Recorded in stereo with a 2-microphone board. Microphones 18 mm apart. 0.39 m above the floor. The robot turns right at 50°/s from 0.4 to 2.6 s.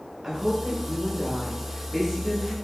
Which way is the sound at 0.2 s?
25° right (ahead or behind).